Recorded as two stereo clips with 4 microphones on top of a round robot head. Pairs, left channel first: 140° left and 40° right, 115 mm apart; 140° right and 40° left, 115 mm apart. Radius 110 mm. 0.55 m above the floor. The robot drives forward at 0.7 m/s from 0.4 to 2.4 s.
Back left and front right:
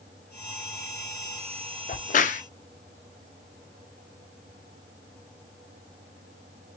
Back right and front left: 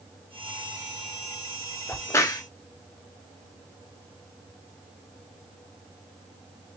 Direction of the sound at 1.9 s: 145° left.